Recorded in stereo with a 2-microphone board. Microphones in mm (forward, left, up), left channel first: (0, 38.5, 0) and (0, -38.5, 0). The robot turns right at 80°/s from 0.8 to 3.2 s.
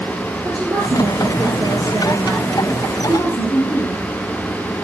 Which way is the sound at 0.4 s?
130° right.